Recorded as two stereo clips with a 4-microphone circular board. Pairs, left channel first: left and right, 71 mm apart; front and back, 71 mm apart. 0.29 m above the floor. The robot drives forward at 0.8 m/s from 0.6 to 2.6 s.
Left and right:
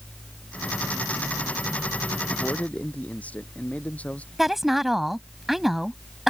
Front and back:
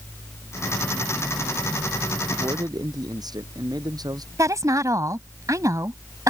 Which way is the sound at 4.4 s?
175° right.